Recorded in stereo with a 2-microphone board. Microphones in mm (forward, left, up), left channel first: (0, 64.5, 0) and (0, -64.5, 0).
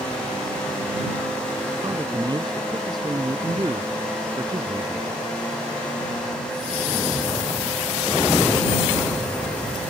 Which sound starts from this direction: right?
A man speaking, at 1.8 s.